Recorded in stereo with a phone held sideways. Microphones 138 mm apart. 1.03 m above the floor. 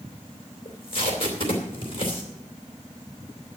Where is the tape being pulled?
45° left (ahead or behind), 2.5 m.